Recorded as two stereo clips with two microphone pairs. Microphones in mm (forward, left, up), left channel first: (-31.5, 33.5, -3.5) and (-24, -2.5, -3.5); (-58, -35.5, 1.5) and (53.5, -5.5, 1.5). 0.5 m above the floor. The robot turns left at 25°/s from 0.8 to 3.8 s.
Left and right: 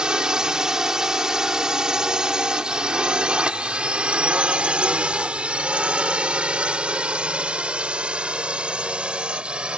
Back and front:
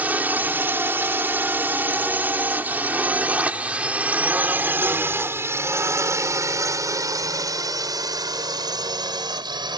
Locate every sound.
0.0 s a drone: 45° right; by 9.8 s 25° right